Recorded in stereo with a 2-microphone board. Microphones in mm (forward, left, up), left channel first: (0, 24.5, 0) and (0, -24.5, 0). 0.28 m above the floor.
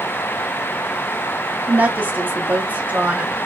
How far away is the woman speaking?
About 2 m.